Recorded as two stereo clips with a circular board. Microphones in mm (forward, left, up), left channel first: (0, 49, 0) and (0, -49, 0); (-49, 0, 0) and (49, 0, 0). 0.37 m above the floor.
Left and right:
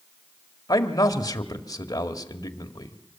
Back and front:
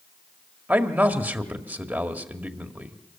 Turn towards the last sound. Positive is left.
turn(degrees=65)